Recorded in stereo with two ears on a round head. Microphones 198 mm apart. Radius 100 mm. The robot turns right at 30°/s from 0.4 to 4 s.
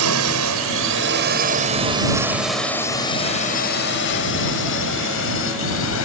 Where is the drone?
75° right (ahead or behind); by 6.0 s 65° left (ahead or behind).